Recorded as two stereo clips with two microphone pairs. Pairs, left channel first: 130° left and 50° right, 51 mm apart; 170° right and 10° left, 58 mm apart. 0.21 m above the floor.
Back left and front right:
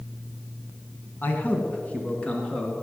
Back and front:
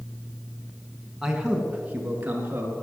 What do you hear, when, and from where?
1.2 s a man speaking: 90° left, 2.0 m; by 2.7 s 55° left, 3 m